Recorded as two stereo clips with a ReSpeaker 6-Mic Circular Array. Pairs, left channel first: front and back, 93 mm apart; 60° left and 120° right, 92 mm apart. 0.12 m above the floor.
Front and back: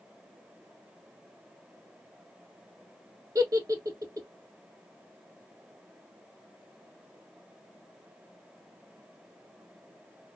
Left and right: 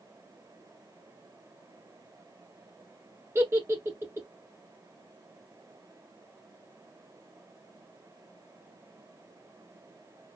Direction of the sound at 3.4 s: 165° right.